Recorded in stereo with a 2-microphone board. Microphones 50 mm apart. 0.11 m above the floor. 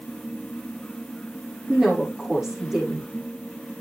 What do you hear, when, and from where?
1.7 s a woman speaking: 5° right (ahead or behind), 5 m